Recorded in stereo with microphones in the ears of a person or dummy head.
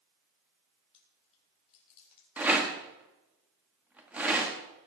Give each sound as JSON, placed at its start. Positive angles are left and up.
{"t": 0.9, "sound": "chewing", "side_deg": 35, "distance_m": 4.5}
{"t": 2.4, "sound": "a rattle", "side_deg": -5, "distance_m": 1.6}